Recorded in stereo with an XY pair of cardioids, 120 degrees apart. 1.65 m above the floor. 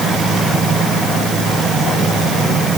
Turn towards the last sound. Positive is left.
No sound to turn to.